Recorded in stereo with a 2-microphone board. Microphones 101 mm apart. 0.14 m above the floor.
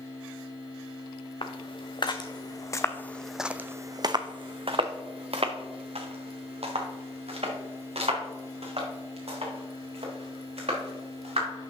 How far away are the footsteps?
About 1.2 m.